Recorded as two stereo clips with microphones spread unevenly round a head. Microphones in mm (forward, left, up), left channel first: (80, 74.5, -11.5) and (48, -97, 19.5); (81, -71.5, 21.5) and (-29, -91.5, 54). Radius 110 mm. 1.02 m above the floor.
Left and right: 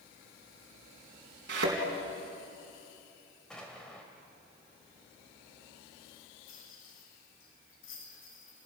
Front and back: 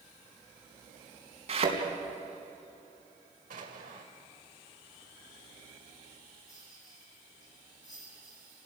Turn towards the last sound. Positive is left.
turn(degrees=75)